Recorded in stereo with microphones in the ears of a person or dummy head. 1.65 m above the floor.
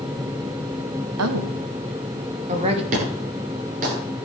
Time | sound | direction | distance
1.2 | a woman speaking | 80° right | 1.8 m
2.9 | an explosion | 40° right (ahead or behind) | 8.5 m